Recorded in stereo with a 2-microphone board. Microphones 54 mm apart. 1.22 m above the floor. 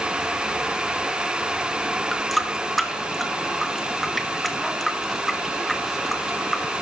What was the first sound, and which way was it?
A running tap, centre (ahead or behind).